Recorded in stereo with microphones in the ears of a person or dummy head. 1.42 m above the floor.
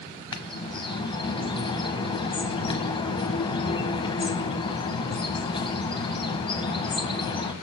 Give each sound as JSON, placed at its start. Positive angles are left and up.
{"t": 0.3, "sound": "a bird", "side_deg": 25, "distance_m": 1.2}